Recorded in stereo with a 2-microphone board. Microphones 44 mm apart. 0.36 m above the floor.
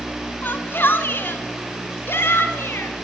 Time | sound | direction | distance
0.4 | a shout | 50° left (ahead or behind) | 3 m